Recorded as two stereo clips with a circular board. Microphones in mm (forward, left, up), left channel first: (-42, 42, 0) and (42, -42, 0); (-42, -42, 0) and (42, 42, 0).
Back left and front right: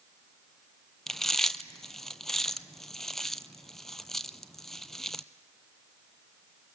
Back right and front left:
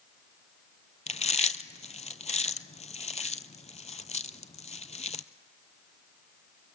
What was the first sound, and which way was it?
Chewing, 140° right.